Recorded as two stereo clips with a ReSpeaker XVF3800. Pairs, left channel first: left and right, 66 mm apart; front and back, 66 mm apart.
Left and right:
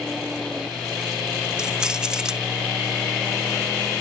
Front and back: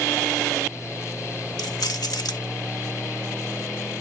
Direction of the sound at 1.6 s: 10° right.